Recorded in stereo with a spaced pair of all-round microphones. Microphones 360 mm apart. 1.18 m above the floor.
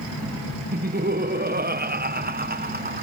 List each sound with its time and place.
0.7 s laughter: 25° right (ahead or behind)